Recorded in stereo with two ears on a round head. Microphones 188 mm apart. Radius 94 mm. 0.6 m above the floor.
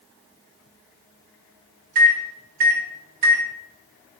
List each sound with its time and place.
1.9 s a microwave: 45° right (ahead or behind), 0.5 m